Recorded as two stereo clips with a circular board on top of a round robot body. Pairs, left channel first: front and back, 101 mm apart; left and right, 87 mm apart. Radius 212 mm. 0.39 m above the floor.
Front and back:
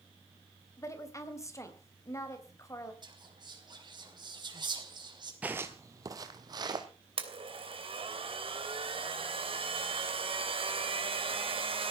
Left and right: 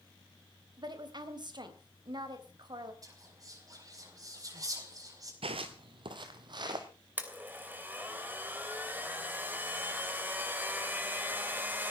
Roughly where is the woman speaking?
Ahead right.